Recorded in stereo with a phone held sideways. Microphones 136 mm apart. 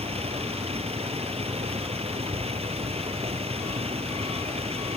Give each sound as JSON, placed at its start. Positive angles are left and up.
{"t": 0.0, "sound": "a vehicle", "side_deg": -45}